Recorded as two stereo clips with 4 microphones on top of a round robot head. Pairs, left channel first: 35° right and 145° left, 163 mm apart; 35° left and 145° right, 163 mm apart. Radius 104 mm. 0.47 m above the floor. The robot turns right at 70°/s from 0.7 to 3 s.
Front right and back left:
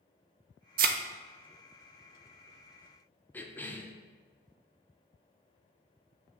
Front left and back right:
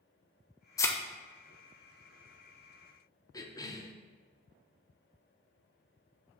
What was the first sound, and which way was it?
A thud, 105° left.